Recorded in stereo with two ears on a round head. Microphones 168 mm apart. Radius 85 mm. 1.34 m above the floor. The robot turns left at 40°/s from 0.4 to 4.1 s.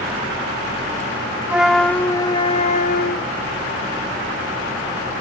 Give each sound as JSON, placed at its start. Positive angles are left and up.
{"t": 1.5, "sound": "a flute", "azimuth_deg": -170}